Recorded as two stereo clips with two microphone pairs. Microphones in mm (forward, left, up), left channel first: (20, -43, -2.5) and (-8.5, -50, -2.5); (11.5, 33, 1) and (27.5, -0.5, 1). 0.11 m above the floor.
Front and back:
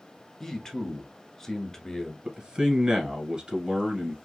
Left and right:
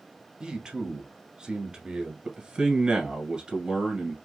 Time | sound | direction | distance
0.4 | a man speaking | 35° right | 1.1 m
2.2 | a man speaking | 120° right | 1.6 m